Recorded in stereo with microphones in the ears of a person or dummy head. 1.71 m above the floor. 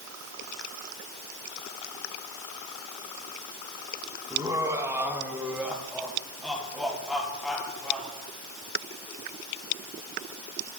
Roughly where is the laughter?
Centre.